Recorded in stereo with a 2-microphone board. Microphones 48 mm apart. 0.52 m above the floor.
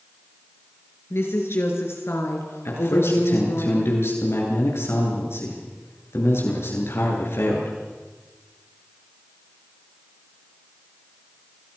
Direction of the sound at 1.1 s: 70° left (ahead or behind).